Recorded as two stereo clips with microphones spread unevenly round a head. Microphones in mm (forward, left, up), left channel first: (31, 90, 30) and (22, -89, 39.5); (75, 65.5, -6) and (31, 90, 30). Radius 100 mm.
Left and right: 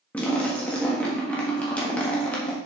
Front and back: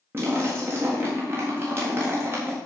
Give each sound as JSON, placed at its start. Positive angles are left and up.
{"t": 0.1, "sound": "a splash", "azimuth_deg": 175, "distance_m": 1.4}